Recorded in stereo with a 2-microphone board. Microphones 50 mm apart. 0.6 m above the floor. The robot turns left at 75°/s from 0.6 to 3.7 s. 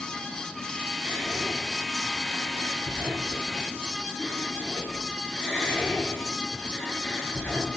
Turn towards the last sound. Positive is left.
turn(degrees=5)  # may be behind; listen again after turning